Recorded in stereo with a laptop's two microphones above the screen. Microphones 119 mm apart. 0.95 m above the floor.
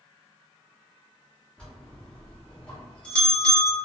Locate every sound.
1.6 s a bell: 10° left (ahead or behind), 1.0 m